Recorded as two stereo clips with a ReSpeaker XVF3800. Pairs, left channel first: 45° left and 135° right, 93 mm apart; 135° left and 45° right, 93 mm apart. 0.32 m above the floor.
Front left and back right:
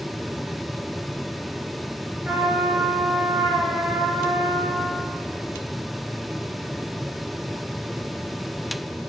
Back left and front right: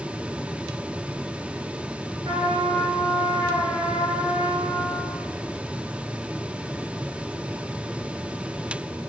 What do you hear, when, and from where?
2.2 s a trumpet: 60° right, 1.3 m